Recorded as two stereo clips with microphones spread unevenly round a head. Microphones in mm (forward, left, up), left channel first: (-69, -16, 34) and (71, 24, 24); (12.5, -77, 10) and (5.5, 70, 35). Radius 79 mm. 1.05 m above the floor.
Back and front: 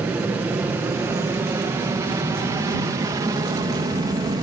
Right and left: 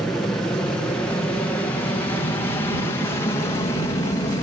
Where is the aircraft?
35° right; by 4.4 s 40° right.